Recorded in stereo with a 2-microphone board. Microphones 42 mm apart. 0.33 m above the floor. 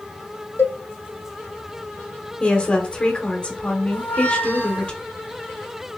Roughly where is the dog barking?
I don't hear a dog barking.